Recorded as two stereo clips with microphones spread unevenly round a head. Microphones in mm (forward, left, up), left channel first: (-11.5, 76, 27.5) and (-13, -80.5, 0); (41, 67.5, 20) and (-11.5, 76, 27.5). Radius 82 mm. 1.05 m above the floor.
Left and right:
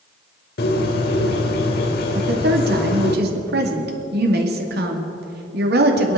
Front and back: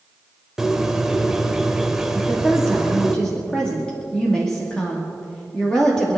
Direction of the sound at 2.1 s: 90° right.